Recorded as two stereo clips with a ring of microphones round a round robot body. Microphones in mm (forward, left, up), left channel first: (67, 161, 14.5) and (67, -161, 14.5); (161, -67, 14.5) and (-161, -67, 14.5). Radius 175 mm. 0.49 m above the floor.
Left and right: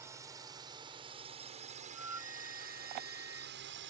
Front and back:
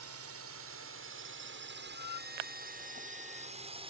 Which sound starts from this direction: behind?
A drone, at 0.0 s.